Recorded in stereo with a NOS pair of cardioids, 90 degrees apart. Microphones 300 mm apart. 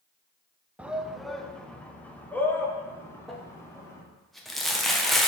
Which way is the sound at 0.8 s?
5° right.